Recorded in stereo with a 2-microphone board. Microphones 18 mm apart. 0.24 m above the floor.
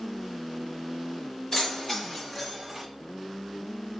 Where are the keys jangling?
40° left (ahead or behind), 1.2 m; by 2.9 s 5° right (ahead or behind), 1.0 m.